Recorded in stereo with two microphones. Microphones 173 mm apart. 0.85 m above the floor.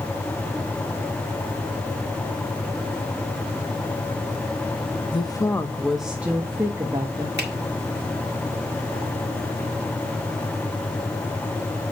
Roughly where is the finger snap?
Right.